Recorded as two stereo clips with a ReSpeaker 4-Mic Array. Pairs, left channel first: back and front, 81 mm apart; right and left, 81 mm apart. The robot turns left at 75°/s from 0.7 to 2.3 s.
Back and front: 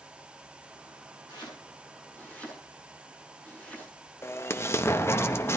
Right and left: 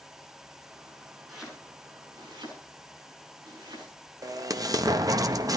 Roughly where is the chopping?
Behind.